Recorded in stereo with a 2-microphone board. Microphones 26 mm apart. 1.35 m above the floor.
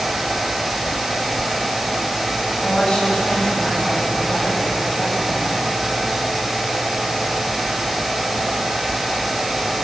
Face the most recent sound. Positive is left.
turn(degrees=40)  # may be behind; listen again after turning